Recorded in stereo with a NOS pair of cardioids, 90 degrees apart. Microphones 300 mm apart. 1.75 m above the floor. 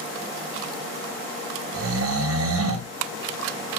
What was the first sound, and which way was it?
Snoring, 50° right.